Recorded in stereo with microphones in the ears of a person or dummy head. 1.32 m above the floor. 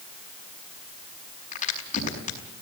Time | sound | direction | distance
1.5 | a crack | 45° left (ahead or behind) | 5 m